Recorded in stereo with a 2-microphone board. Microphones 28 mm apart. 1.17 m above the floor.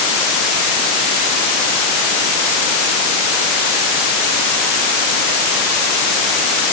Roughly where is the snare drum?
No snare drum in this recording.